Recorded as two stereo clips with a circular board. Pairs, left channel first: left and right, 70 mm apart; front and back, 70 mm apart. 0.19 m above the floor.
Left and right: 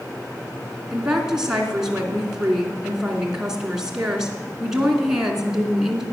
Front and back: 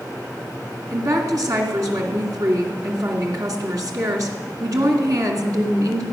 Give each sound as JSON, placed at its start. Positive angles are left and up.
{"t": 0.9, "sound": "a woman speaking", "azimuth_deg": -170, "distance_m": 2.5}